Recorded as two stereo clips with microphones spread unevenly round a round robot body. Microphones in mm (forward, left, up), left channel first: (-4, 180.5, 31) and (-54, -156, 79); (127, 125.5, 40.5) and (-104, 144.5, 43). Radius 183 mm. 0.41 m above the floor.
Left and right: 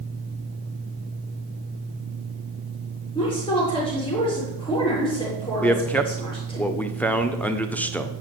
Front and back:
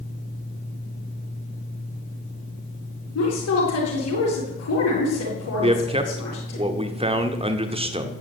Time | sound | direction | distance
3.1 | a woman speaking | 5° left | 7.5 m
5.6 | a man speaking | 145° left | 1.4 m